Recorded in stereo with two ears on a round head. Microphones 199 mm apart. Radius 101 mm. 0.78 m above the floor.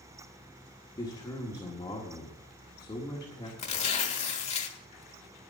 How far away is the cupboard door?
I don't hear a cupboard door.